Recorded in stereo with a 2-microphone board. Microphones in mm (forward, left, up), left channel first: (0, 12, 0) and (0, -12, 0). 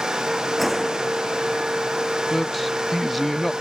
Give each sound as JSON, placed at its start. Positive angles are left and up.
{"t": 0.6, "sound": "a gunshot", "side_deg": 0}
{"t": 2.3, "sound": "a man speaking", "side_deg": 5}